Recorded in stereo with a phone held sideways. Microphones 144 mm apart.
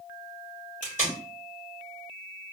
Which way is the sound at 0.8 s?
60° left (ahead or behind).